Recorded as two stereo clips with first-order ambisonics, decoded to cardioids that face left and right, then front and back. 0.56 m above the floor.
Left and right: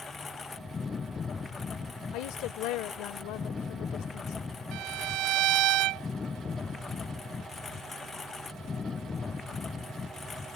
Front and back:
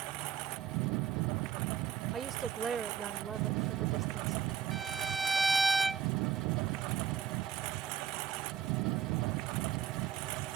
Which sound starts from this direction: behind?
A lawn mower, at 0.0 s.